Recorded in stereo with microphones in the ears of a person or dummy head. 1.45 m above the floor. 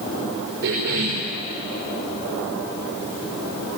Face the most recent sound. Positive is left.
turn(degrees=-80)